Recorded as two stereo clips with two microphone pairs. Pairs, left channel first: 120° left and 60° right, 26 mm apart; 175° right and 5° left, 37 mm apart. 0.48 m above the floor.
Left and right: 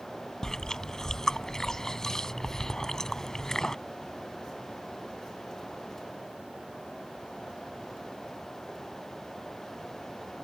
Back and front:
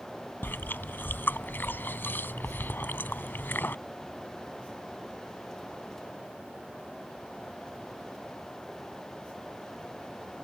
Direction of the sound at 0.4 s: 170° right.